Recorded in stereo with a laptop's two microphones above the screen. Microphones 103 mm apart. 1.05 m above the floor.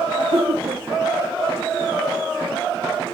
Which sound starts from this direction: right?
Laughter, at 0.2 s.